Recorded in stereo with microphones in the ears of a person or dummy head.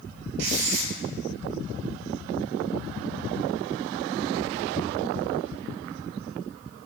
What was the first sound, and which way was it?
Writing, 60° right (ahead or behind).